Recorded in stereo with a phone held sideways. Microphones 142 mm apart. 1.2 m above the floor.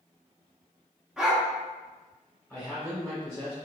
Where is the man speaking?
5° left (ahead or behind), 1.0 m.